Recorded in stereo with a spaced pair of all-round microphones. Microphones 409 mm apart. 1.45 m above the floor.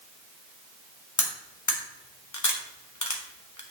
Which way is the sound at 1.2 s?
45° left (ahead or behind).